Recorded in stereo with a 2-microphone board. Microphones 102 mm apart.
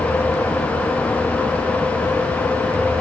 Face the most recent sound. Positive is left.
No sound to turn to.